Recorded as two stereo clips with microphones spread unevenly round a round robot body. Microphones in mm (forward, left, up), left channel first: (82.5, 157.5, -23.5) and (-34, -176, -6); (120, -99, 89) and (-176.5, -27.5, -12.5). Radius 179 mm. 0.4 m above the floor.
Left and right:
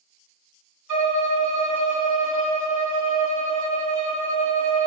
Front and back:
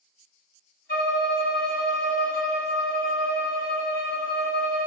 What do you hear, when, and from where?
0.9 s a violin: 80° right, 3.5 m